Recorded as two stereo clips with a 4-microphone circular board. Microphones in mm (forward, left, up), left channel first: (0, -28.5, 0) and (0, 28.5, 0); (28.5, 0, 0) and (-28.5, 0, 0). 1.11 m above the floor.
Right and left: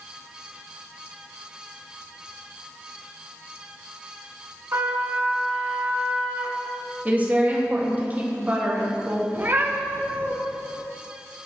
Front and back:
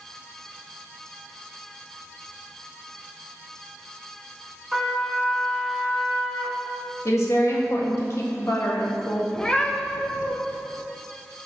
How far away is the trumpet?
About 1.4 m.